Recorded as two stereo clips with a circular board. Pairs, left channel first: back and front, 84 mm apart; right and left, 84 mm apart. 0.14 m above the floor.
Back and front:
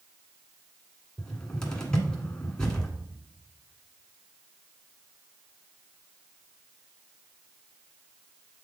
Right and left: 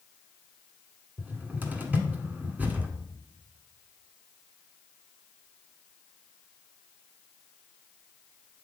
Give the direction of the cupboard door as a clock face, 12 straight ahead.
8 o'clock.